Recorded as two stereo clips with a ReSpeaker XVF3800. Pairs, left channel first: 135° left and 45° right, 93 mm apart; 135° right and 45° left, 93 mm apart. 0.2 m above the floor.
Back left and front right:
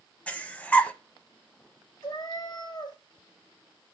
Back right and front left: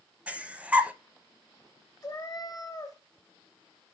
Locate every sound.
0.3 s breathing: 90° left, 0.7 m
2.0 s a cat meowing: 170° left, 2 m